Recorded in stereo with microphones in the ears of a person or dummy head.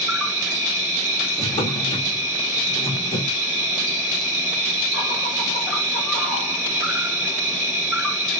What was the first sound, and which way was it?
An insect, centre (ahead or behind).